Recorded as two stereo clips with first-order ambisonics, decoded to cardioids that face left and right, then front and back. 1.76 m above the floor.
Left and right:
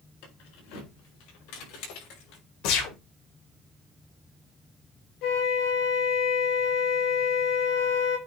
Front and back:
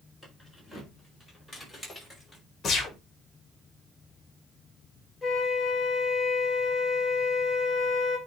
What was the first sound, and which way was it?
Keys jangling, 95° left.